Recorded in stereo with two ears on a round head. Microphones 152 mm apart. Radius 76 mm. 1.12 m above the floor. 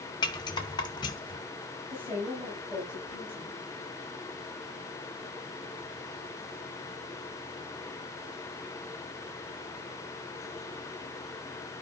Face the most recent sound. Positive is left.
turn(degrees=-10)  # may be behind; listen again after turning